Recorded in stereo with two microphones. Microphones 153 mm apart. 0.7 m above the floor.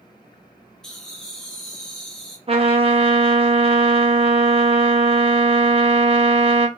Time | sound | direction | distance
0.8 | laughter | 5° left (ahead or behind) | 0.7 m
2.5 | a trumpet | 40° right (ahead or behind) | 0.7 m